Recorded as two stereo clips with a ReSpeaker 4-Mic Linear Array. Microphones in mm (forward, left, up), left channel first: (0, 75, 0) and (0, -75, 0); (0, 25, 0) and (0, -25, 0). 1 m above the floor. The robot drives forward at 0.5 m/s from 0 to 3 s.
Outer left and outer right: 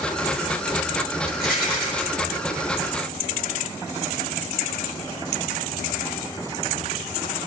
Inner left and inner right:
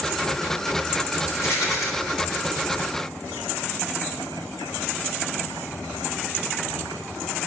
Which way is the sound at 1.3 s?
75° left (ahead or behind).